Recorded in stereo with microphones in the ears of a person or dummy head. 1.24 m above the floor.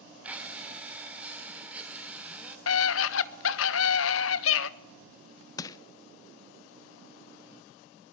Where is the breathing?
5° right (ahead or behind), 3 m.